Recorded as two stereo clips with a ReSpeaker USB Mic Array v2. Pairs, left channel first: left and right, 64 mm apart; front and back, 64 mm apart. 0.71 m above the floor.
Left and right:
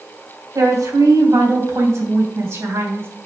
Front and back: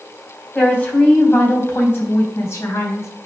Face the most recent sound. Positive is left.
turn(degrees=-40)